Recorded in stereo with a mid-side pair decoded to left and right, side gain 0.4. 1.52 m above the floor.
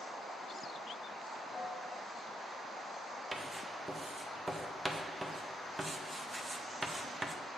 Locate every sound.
1.5 s a piano: 30° left, 1.7 m
3.3 s writing: 20° right, 0.8 m